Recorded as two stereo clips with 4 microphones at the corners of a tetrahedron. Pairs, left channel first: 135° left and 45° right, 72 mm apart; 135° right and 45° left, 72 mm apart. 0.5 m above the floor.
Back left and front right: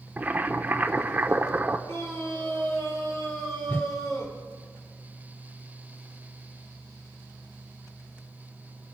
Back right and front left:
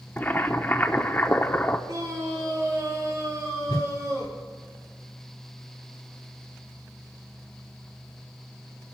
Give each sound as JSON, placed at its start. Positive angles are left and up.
{"t": 0.2, "sound": "boiling", "azimuth_deg": -95, "distance_m": 0.9}
{"t": 1.9, "sound": "a scream", "azimuth_deg": 85, "distance_m": 7.5}
{"t": 3.7, "sound": "a whoosh", "azimuth_deg": -160, "distance_m": 0.8}